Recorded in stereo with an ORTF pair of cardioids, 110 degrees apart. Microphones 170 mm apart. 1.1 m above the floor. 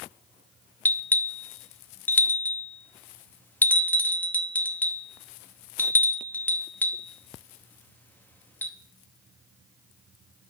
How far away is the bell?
About 0.8 m.